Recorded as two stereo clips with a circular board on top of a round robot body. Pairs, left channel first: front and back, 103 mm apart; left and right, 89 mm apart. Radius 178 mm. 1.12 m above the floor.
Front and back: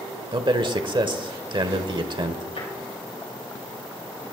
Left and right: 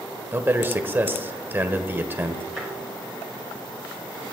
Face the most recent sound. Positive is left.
turn(degrees=0)